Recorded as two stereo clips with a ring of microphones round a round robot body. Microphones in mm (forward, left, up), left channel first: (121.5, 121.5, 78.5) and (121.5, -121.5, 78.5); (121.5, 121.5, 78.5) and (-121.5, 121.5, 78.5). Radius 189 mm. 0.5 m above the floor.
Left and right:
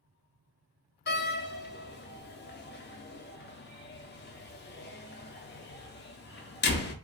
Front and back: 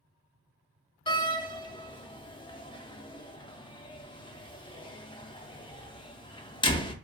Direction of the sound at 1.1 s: 65° left.